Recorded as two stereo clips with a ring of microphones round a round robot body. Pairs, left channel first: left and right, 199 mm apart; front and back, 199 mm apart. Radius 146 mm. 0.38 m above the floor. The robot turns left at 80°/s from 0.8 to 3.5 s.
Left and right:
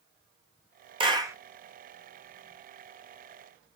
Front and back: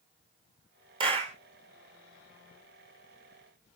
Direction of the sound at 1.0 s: 130° right.